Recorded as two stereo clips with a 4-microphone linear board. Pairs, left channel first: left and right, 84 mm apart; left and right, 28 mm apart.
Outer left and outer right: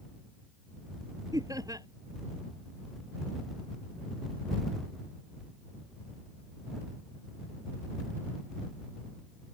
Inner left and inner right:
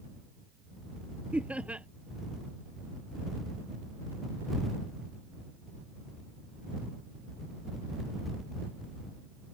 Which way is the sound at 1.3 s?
45° right (ahead or behind).